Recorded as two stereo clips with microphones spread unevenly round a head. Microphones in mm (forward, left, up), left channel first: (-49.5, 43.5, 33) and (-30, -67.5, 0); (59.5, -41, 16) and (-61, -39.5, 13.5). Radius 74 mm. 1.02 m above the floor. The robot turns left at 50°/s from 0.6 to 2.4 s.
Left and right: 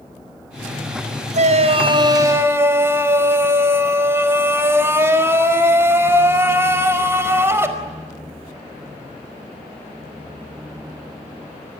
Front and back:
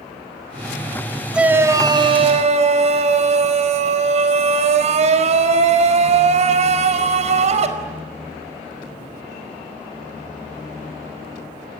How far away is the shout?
About 4.5 m.